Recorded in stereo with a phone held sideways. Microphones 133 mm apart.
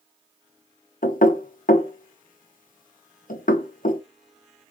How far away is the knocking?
About 0.6 m.